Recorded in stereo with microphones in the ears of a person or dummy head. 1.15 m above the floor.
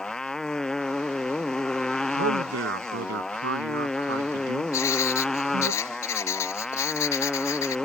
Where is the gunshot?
I don't hear a gunshot.